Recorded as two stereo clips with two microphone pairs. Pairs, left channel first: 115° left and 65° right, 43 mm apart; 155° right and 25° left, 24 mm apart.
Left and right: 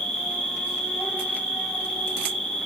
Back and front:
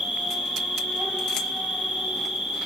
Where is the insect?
50° left, 2.5 m.